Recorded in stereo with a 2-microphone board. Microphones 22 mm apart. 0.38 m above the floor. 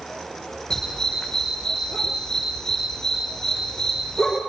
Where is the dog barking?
25° left (ahead or behind), 6.5 m.